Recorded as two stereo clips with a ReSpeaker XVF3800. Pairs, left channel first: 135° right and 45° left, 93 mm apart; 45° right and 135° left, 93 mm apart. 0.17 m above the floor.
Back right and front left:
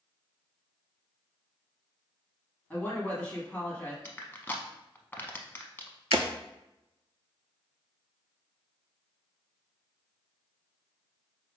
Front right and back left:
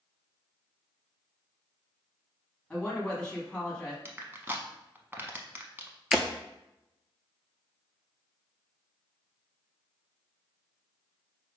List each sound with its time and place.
2.7 s a woman speaking: 95° right, 1.1 m
4.0 s crushing: 175° left, 0.6 m
6.1 s breaking glass: 50° left, 0.5 m